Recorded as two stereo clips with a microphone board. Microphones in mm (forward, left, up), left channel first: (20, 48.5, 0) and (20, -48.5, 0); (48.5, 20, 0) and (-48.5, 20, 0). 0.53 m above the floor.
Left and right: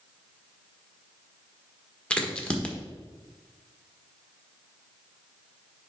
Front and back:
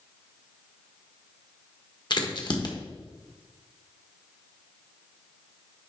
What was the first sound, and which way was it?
A crack, 15° left.